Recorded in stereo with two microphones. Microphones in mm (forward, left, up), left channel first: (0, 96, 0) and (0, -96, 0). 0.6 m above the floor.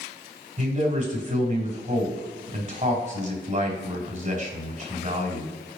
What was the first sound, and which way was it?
A man speaking, 35° right (ahead or behind).